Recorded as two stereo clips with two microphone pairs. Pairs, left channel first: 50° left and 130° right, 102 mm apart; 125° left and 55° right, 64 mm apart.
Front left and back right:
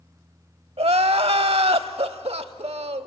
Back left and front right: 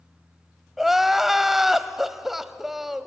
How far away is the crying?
About 0.7 m.